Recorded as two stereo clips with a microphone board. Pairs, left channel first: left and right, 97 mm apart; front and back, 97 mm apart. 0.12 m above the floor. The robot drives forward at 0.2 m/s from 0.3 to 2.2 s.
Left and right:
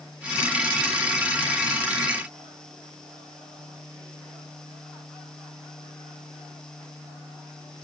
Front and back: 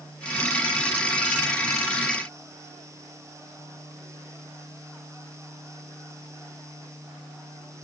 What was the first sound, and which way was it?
Only background noise.